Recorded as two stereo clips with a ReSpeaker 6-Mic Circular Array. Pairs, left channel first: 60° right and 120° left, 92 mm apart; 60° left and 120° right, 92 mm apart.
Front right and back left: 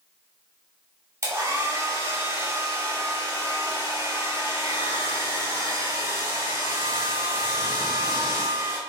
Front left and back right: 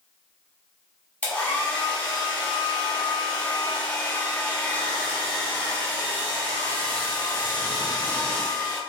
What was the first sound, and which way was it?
A hair dryer, 120° left.